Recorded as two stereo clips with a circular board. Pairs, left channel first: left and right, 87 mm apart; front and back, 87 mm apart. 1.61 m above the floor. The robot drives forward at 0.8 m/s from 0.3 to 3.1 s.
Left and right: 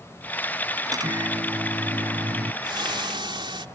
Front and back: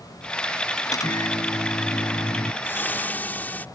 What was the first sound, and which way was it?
A microwave, 45° right.